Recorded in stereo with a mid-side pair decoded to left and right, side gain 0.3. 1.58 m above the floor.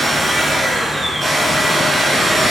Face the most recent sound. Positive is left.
turn(degrees=-60)